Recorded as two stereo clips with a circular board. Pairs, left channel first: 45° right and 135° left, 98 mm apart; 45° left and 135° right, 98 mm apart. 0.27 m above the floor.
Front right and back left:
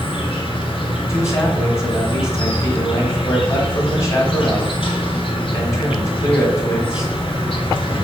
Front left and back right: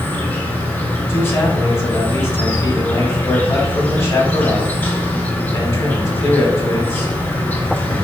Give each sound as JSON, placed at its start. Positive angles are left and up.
{"t": 0.0, "sound": "an insect", "azimuth_deg": -25, "distance_m": 1.1}
{"t": 1.1, "sound": "a man speaking", "azimuth_deg": 0, "distance_m": 1.2}